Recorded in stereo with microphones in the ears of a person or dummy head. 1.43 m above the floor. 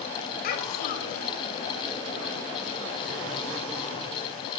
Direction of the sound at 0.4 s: 50° left (ahead or behind).